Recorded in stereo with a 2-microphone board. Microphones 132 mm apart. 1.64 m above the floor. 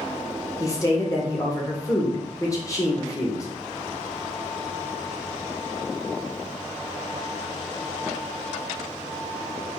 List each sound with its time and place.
0.6 s a woman speaking: 25° left (ahead or behind), 1.1 m